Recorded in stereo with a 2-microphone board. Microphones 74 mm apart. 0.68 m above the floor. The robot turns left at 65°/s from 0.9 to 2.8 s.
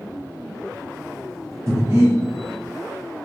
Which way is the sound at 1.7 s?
45° right (ahead or behind).